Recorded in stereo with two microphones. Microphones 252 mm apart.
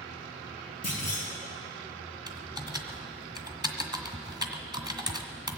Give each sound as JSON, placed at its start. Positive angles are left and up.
{"t": 0.8, "sound": "a clunk", "side_deg": 65, "distance_m": 5.0}
{"t": 2.3, "sound": "typing on a keyboard", "side_deg": -15, "distance_m": 1.3}